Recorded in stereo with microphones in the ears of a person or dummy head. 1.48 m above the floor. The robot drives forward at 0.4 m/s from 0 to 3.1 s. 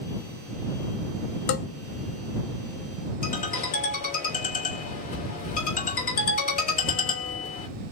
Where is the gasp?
No gasp in this recording.